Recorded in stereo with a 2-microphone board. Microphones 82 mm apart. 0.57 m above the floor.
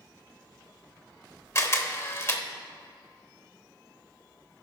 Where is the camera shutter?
35° left (ahead or behind), 0.7 m.